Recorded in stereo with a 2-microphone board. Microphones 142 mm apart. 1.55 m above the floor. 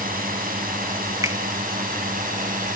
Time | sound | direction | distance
0.0 | a drone | 80° right | ?
1.2 | a finger snap | 20° right (ahead or behind) | ?